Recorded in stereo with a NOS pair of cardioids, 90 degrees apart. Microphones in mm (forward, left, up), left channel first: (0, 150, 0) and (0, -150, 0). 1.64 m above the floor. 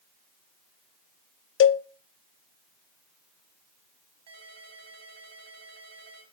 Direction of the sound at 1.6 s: 45° left.